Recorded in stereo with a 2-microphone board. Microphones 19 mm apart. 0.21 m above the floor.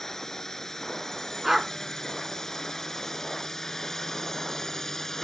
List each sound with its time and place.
0.0 s a drone: 20° left (ahead or behind)
1.4 s a dog barking: 15° right (ahead or behind)